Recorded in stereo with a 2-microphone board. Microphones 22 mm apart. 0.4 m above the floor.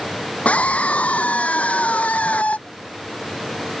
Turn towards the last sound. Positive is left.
turn(degrees=80)